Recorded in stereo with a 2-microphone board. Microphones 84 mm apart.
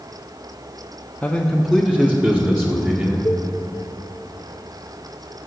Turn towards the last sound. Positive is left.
turn(degrees=35)  # may be behind; listen again after turning